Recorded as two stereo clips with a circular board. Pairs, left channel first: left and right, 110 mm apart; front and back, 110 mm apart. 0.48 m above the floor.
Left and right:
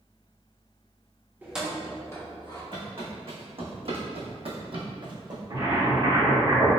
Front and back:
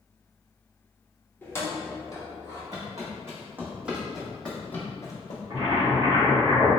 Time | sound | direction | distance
1.4 | keys jangling | 40° right | 0.6 m
2.7 | footsteps | 125° right | 1.5 m
5.5 | boiling | 130° right | 1.6 m